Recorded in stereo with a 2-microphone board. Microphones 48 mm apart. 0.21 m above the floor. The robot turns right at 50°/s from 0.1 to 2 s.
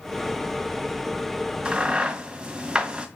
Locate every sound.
1.6 s a crack: 25° right (ahead or behind), 1.6 m; by 3.1 s 20° right (ahead or behind), 1.6 m